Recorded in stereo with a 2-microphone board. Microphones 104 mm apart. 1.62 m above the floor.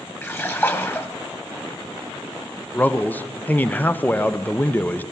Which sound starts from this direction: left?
A splash, at 0.2 s.